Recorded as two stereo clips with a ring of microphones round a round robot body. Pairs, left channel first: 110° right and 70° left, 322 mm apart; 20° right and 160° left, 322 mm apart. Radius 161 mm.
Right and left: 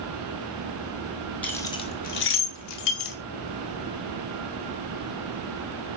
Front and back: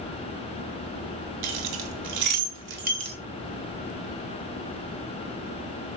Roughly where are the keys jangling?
Behind.